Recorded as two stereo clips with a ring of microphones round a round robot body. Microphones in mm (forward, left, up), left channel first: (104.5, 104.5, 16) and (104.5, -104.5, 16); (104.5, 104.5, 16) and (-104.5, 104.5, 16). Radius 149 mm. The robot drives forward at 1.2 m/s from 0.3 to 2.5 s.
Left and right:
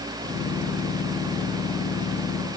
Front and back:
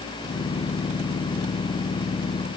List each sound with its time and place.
Only background noise.